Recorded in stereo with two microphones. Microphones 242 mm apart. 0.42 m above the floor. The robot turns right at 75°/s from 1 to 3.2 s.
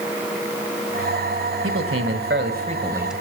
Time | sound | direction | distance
1.6 | a man speaking | 115° right | 1.8 m